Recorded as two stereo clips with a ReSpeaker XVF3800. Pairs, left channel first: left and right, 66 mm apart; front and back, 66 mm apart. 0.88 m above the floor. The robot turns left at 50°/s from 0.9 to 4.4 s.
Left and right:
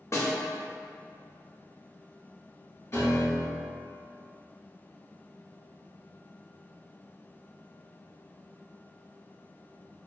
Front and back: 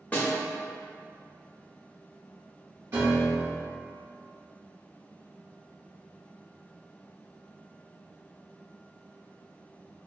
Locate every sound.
0.1 s a snare drum: 60° left, 0.6 m
2.9 s a piano: 130° left, 1.0 m; by 3.8 s 85° left, 1.0 m